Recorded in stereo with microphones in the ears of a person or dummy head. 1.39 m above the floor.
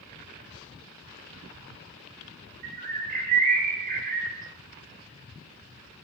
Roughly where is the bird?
Right.